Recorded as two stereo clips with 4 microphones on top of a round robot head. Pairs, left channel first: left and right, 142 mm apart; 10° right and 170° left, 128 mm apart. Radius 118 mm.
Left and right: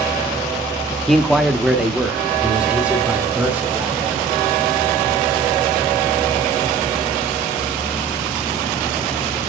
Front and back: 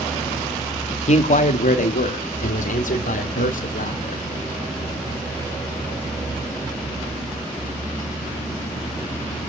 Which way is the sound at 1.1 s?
5° left.